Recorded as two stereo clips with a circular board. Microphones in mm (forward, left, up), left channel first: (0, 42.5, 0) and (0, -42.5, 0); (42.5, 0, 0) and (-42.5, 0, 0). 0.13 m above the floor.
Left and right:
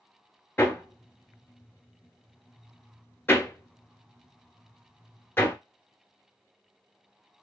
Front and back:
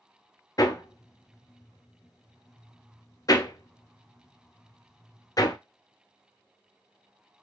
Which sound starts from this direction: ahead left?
Hammering, at 0.6 s.